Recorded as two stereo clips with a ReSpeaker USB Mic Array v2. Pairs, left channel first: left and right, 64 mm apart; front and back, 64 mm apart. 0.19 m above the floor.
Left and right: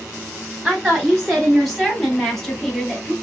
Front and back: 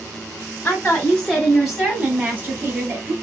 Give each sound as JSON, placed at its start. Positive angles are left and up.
{"t": 0.6, "sound": "a woman speaking", "azimuth_deg": 0, "distance_m": 1.2}